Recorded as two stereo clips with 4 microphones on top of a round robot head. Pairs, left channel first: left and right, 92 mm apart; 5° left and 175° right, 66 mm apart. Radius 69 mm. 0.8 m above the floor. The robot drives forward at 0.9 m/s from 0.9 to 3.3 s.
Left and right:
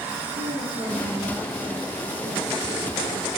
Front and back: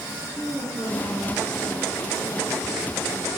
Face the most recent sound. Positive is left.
turn(degrees=-80)